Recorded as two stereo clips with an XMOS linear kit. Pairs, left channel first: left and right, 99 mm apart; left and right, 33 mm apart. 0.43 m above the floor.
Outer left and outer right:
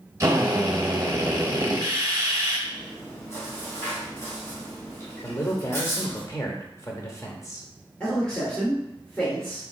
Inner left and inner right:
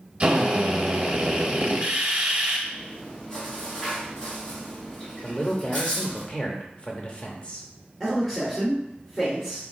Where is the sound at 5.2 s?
30° left (ahead or behind), 0.8 m.